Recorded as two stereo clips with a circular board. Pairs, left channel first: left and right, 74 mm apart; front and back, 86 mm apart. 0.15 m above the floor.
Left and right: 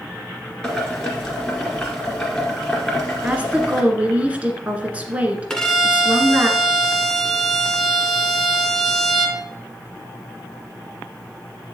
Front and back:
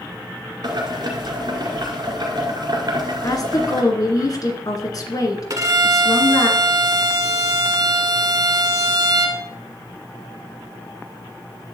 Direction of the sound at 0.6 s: 170° left.